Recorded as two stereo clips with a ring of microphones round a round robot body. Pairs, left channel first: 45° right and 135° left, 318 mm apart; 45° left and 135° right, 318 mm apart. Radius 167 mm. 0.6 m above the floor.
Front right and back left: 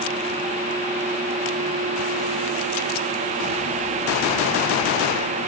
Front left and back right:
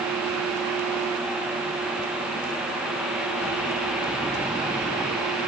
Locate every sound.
Only background noise.